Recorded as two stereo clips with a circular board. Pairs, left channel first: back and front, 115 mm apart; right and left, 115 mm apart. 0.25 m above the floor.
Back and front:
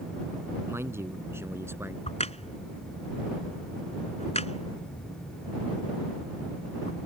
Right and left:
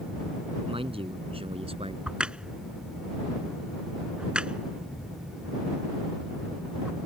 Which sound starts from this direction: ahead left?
A man speaking, at 0.7 s.